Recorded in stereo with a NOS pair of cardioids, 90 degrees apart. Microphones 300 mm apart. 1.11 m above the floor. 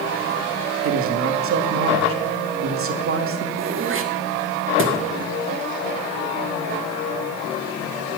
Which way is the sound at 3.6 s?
45° right.